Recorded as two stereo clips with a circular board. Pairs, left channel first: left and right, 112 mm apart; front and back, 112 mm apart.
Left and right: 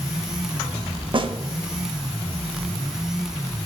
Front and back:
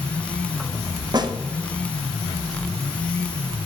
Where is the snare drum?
130° right, 0.7 m.